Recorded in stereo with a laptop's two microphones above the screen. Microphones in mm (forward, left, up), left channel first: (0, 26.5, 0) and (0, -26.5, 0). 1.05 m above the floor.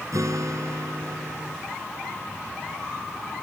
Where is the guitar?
85° right.